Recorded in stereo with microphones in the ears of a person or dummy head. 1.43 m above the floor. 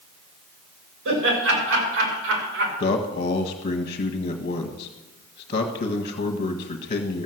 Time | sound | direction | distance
1.1 | laughter | 70° right (ahead or behind) | 6.5 m
2.8 | a man speaking | 45° left (ahead or behind) | 1.5 m